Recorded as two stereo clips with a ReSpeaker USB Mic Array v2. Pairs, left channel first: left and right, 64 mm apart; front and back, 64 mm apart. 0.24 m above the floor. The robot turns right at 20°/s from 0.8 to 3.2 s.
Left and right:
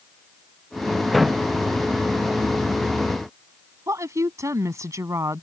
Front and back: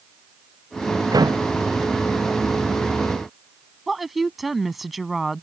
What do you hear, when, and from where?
1.1 s a door slam: 175° left; by 1.5 s 175° right
3.9 s a woman speaking: 90° right